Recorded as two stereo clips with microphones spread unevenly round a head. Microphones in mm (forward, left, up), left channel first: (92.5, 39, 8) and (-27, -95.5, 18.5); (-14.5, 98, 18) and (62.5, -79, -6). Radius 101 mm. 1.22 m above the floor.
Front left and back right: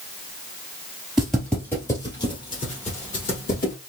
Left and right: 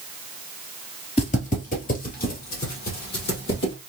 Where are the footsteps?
145° left, 1.6 m; by 3.7 s 95° left, 2.5 m.